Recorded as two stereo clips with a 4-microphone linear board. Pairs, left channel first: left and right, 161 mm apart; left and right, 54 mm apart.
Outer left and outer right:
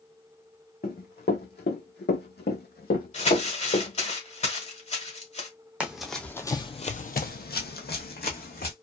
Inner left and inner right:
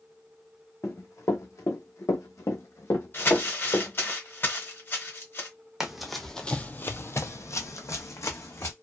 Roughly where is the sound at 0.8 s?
Left.